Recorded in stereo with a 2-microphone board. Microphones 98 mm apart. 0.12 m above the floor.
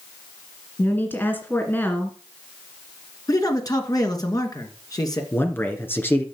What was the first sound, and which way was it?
A woman speaking, 20° left (ahead or behind).